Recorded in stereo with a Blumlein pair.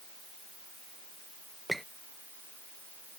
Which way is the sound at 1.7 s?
5° right.